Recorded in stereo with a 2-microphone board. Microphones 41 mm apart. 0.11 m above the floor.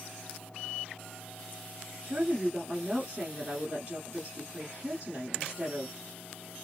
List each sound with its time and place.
2.0 s a woman speaking: 25° right (ahead or behind), 1.3 m